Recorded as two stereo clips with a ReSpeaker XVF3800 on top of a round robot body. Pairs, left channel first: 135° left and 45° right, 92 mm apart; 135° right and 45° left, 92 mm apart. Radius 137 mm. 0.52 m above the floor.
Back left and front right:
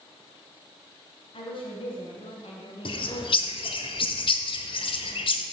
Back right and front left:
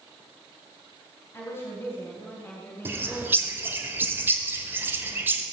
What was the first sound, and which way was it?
A woman speaking, 160° left.